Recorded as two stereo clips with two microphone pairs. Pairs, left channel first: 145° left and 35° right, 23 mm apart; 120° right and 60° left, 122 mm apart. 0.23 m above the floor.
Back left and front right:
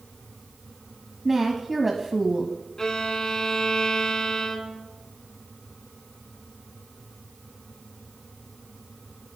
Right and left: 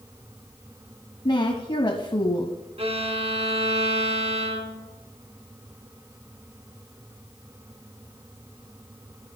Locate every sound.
1.2 s a woman speaking: 110° right, 1.3 m
2.8 s a violin: 85° left, 1.9 m